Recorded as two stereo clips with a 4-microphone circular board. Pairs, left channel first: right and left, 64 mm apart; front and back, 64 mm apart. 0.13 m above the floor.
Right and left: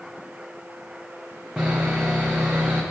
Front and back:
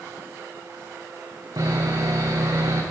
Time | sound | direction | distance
1.6 | sawing | 165° left | 2.5 m